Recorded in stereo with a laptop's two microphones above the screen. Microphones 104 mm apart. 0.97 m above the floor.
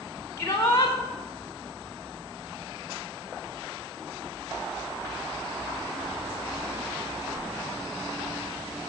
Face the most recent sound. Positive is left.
turn(degrees=25)  # may be behind; listen again after turning